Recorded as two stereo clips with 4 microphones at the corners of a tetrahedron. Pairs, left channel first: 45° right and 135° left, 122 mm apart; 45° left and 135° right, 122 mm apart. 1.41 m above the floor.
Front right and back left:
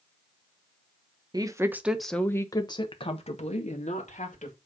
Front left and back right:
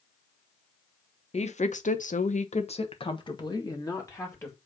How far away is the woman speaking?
About 1.2 m.